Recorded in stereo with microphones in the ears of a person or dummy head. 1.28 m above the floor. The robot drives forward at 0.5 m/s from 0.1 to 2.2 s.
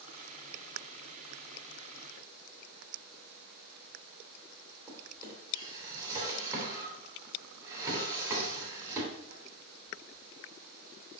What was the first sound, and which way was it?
A drawer, 20° right (ahead or behind).